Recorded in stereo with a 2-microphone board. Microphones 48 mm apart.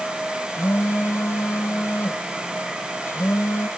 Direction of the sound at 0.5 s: 80° left.